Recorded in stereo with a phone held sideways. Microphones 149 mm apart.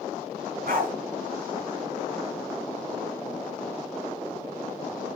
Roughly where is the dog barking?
Right.